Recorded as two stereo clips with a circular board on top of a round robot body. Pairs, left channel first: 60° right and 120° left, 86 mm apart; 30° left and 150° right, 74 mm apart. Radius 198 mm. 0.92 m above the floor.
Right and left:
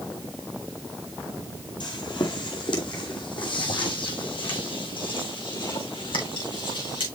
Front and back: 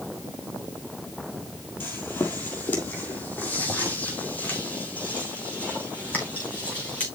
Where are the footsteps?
30° right, 1.5 m; by 7.0 s 40° right, 5 m.